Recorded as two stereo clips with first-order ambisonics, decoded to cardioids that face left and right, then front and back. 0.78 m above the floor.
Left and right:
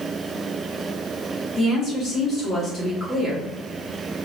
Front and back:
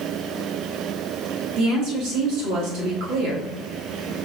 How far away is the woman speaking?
About 1.9 m.